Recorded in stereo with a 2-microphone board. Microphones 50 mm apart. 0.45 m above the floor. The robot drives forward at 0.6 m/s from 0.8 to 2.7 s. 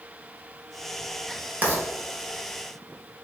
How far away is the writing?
About 1.6 m.